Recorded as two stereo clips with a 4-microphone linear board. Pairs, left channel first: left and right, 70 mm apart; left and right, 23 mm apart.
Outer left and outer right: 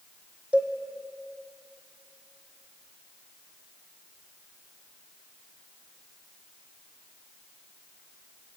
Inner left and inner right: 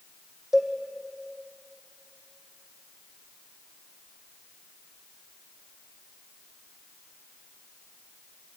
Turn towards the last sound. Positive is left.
turn(degrees=-20)  # may be behind; listen again after turning